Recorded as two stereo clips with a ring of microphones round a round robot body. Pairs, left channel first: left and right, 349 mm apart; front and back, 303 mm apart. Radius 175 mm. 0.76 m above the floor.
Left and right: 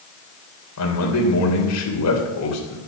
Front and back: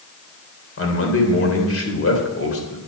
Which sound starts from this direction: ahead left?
A man speaking, at 0.8 s.